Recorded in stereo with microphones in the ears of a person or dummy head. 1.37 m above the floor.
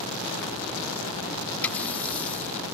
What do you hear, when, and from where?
1.6 s a running tap: 10° left (ahead or behind)